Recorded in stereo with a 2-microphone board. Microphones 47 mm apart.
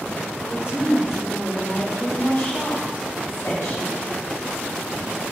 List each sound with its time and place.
0.4 s a woman speaking: 35° right (ahead or behind), 0.9 m; by 4.0 s 60° left (ahead or behind), 1.7 m